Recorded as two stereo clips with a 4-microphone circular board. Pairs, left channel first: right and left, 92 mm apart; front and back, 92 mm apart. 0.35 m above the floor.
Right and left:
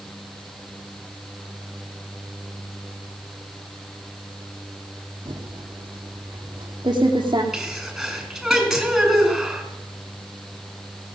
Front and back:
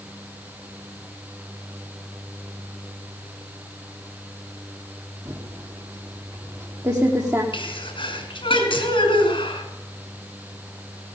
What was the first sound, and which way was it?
Typing on a keyboard, 125° left.